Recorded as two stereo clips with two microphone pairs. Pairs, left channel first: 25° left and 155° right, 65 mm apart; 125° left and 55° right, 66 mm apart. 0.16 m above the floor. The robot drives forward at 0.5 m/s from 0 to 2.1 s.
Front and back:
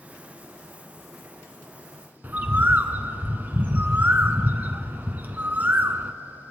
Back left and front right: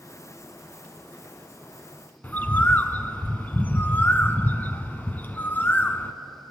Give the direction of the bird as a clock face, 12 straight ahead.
7 o'clock.